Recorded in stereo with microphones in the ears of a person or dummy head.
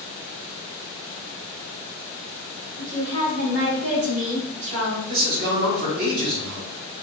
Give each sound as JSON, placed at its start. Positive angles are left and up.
{"t": 2.8, "sound": "a woman speaking", "side_deg": -55, "distance_m": 2.5}
{"t": 5.1, "sound": "a man speaking", "side_deg": -50, "distance_m": 2.0}